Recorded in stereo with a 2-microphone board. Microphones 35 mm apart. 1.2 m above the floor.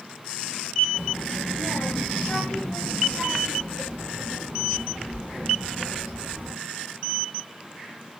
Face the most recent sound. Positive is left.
turn(degrees=-25)  # may be behind; listen again after turning